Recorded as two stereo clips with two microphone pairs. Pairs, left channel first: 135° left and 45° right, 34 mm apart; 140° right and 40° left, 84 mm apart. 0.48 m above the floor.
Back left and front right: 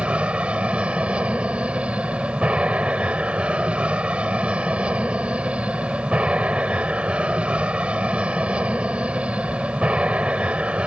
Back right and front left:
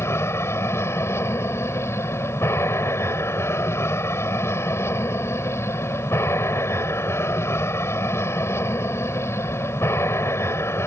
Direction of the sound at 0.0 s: 90° right.